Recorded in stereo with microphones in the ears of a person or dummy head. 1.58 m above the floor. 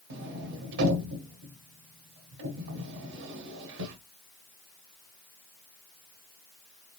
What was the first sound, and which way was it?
A sliding door, 65° right (ahead or behind).